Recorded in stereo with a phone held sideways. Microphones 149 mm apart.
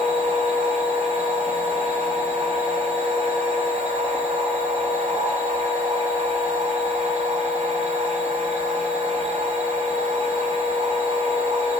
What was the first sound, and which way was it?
A machine running, 45° right (ahead or behind).